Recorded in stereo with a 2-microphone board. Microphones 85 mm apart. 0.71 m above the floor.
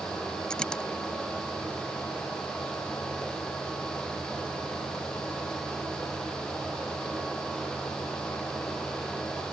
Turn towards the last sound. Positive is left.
turn(degrees=10)  # may be behind; listen again after turning